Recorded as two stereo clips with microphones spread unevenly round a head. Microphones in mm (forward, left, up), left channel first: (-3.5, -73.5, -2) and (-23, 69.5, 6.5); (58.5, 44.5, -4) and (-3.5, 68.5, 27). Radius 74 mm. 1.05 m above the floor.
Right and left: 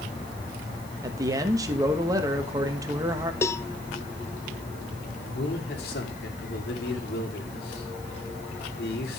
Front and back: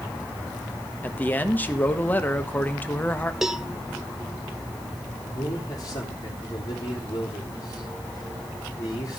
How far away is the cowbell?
About 0.6 m.